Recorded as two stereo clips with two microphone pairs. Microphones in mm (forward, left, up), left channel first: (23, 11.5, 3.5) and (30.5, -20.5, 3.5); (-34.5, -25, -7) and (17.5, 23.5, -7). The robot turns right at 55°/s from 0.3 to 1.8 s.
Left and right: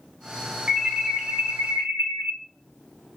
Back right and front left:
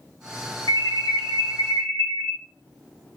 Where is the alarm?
150° right, 0.8 m; by 2.3 s 85° right, 0.8 m.